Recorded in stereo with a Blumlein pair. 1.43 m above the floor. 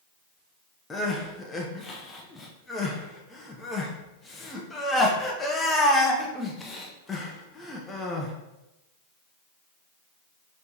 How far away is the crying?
About 0.7 m.